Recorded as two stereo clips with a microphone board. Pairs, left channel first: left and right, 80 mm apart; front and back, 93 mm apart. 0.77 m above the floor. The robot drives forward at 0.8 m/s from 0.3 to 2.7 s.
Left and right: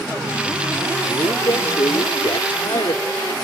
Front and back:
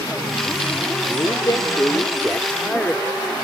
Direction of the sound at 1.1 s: 45° left.